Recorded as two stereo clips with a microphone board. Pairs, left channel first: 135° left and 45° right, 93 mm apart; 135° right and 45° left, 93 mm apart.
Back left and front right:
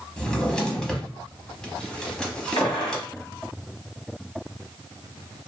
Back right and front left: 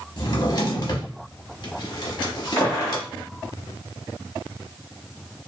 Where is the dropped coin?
No dropped coin in this recording.